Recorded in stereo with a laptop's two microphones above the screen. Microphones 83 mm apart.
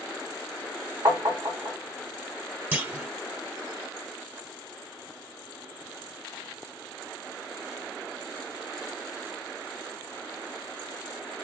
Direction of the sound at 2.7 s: 25° right (ahead or behind).